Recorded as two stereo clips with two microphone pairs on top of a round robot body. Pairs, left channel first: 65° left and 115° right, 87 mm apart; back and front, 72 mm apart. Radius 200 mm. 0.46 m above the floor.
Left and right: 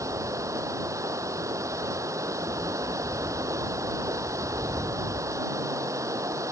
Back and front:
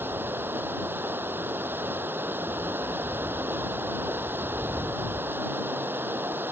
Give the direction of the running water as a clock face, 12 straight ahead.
2 o'clock.